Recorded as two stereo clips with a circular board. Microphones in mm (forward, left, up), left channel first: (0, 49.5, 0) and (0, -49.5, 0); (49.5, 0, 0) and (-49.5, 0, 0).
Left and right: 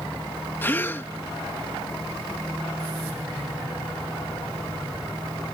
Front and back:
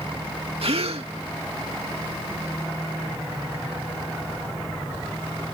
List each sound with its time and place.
0.6 s a gasp: 160° left